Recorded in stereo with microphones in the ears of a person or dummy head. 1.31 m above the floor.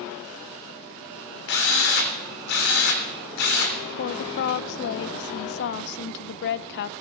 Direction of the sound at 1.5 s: 60° left (ahead or behind).